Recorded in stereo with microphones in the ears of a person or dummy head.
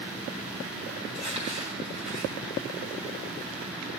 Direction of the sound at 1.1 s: 35° right (ahead or behind).